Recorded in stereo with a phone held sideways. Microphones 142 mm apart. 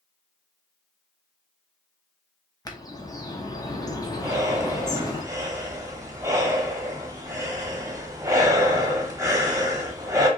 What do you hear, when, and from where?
2.6 s a bird: 25° left (ahead or behind), 0.9 m
4.2 s breathing: 25° right (ahead or behind), 1.1 m